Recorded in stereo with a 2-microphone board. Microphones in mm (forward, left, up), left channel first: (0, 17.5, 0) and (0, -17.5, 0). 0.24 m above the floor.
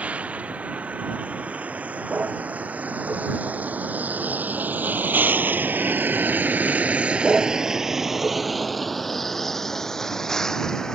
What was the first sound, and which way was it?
A vehicle, 50° right (ahead or behind).